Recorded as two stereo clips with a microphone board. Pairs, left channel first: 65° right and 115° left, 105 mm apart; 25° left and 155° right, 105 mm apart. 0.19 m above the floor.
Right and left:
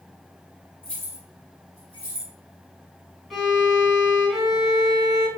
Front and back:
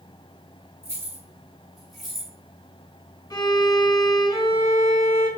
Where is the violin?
25° left, 1.9 m.